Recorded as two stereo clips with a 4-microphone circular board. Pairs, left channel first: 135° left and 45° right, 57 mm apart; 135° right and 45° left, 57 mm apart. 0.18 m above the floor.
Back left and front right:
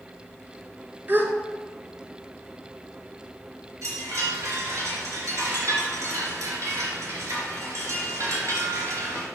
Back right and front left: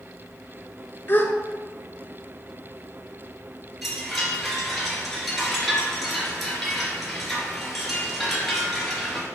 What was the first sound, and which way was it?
A gasp, 90° right.